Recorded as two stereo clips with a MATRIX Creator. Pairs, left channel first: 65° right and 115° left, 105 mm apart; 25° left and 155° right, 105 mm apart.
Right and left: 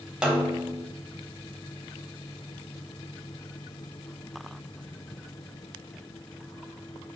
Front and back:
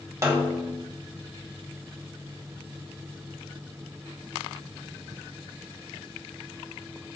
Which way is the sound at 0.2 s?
175° right.